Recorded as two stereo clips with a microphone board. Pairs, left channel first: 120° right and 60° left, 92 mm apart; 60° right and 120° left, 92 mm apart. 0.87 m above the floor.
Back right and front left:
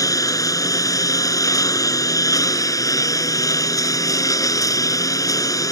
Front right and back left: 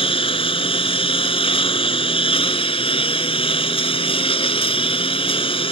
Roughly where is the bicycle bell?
I don't hear a bicycle bell.